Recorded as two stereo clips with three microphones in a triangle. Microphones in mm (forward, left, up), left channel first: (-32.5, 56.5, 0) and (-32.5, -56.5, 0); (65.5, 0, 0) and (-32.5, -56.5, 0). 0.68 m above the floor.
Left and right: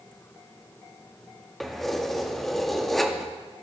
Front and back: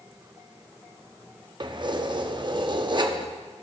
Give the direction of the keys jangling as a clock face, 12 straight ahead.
6 o'clock.